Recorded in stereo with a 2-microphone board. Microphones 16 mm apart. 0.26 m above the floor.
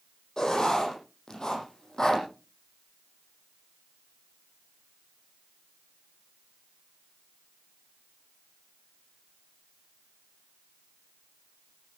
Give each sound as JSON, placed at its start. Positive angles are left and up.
{"t": 0.4, "sound": "writing", "side_deg": 45, "distance_m": 9.0}